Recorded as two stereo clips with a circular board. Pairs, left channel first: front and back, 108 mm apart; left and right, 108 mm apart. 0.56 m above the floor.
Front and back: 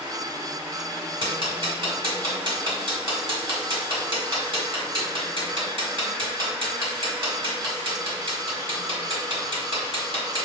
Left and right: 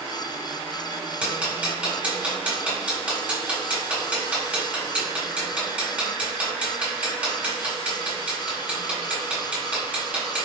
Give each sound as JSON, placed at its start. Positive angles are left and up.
{"t": 1.2, "sound": "ticking", "azimuth_deg": -165, "distance_m": 1.5}